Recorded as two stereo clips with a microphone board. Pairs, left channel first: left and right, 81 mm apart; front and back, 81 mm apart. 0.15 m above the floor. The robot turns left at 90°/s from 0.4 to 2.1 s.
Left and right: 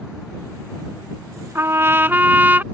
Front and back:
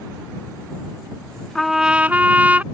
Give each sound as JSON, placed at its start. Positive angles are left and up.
{"t": 1.6, "sound": "a trumpet", "azimuth_deg": -80}